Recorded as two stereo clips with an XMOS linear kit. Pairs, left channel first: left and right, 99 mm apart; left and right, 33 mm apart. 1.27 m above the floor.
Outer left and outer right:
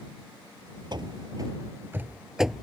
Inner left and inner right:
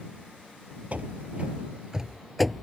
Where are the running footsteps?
50° right (ahead or behind); by 2.6 s centre (ahead or behind).